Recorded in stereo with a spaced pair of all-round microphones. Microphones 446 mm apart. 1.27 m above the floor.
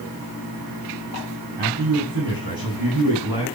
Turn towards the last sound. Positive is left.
turn(degrees=-65)  # may be behind; listen again after turning